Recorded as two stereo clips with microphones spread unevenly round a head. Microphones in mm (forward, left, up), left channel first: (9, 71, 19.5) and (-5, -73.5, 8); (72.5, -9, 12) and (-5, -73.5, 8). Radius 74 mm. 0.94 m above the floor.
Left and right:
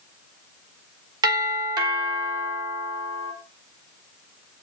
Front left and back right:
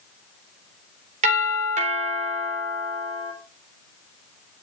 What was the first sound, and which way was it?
A doorbell, 160° right.